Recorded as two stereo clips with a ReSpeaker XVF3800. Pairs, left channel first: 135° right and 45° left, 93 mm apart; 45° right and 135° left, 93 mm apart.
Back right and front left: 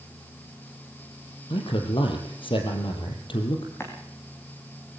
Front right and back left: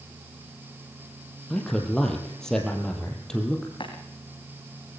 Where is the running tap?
70° right, 3.5 m.